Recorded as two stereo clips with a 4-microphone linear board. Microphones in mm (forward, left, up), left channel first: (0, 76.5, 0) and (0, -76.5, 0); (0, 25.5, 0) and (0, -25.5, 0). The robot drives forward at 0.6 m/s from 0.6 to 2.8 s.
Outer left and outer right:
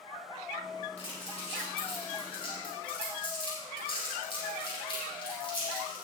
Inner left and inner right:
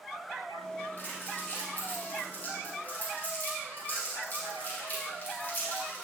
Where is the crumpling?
40° left (ahead or behind), 6.5 m; by 6.0 s 35° left (ahead or behind), 7.5 m.